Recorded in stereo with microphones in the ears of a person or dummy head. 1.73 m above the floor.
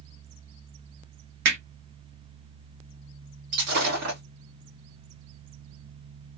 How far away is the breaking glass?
About 1.6 m.